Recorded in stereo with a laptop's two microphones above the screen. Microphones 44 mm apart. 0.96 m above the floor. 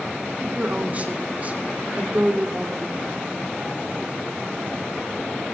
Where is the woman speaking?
35° right (ahead or behind), 3.5 m.